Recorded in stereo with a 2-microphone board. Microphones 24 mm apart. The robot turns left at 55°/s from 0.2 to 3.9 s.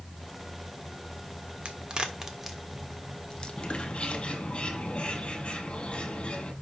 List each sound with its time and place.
1.6 s a crack: 50° right (ahead or behind), 1.3 m; by 4.2 s 70° left (ahead or behind), 1.3 m
3.6 s a bird: 35° left (ahead or behind), 6.5 m; by 6.5 s 55° left (ahead or behind), 6.5 m